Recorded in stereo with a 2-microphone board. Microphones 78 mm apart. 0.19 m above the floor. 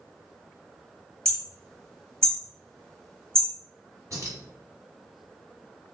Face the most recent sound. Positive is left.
turn(degrees=-45)  # may be behind; listen again after turning